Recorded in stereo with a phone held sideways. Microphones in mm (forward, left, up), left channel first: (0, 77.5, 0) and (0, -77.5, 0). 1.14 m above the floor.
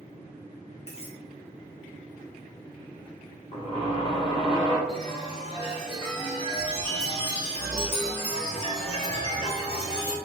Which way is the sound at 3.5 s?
35° left (ahead or behind).